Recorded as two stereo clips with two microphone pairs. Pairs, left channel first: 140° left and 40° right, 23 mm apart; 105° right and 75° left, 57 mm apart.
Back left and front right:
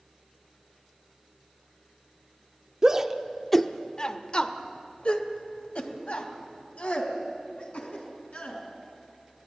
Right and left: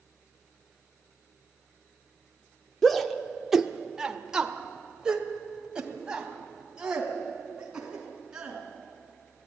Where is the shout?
35° right, 0.9 m; by 8.6 s 150° left, 5 m.